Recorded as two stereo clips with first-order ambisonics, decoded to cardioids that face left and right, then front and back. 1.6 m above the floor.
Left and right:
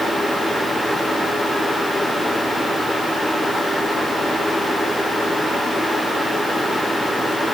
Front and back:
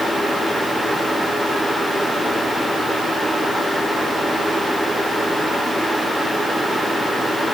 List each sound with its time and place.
Only background noise.